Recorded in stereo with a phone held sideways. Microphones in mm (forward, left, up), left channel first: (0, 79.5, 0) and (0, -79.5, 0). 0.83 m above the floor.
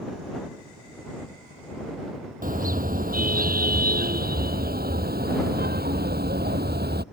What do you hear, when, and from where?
2.4 s a car horn: 60° right (ahead or behind); by 7.0 s 80° right